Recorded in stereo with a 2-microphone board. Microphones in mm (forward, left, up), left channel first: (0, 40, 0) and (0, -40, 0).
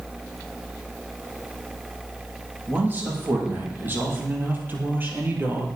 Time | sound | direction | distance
2.7 | a man speaking | 25° right (ahead or behind) | 7.5 m